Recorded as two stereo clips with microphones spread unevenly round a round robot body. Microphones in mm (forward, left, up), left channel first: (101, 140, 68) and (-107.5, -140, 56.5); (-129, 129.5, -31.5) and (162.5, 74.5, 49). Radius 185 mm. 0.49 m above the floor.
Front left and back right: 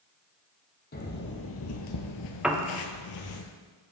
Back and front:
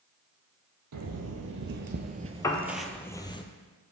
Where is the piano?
155° left, 0.7 m.